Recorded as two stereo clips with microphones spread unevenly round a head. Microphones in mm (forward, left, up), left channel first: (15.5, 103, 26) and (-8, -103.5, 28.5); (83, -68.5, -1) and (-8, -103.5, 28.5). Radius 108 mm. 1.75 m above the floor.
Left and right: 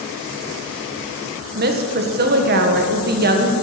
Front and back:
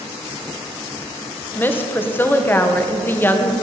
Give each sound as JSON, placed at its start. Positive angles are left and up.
{"t": 1.6, "sound": "a woman speaking", "azimuth_deg": -50, "distance_m": 1.7}